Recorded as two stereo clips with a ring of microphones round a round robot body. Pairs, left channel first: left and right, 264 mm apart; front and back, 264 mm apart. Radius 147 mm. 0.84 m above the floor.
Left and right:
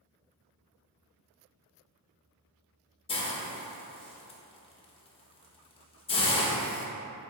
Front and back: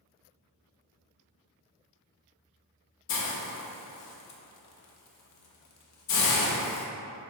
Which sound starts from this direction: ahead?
A hiss, at 3.1 s.